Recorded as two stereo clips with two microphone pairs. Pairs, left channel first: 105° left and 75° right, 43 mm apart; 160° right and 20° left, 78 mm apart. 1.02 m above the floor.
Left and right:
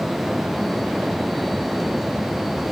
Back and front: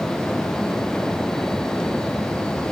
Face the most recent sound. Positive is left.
No sound to turn to.